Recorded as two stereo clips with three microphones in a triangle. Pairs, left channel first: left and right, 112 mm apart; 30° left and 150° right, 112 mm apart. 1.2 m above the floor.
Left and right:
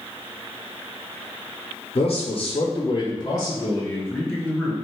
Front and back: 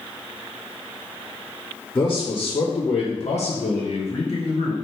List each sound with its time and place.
1.9 s a man speaking: 90° left, 0.8 m; by 4.8 s 5° right, 1.2 m